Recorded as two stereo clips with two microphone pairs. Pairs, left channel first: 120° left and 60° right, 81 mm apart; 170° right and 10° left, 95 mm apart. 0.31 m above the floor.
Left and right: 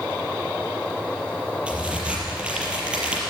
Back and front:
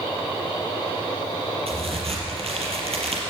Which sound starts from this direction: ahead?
A crack, at 1.7 s.